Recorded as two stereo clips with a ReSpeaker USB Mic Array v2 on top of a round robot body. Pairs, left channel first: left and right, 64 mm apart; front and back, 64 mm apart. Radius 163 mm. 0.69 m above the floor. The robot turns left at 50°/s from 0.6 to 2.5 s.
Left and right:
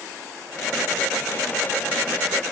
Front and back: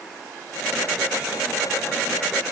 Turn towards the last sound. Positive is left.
No sound to turn to.